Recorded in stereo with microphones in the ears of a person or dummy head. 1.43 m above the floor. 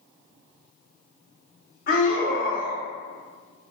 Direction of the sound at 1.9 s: 40° left (ahead or behind).